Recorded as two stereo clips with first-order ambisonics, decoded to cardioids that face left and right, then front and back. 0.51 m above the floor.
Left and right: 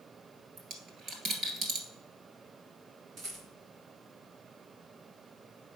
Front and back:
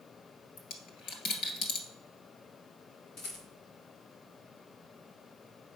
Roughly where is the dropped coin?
Ahead right.